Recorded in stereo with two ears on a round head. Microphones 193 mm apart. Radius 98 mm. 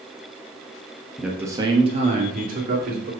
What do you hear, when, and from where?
1.2 s a man speaking: centre (ahead or behind), 0.9 m; by 3.1 s 45° right (ahead or behind), 2.5 m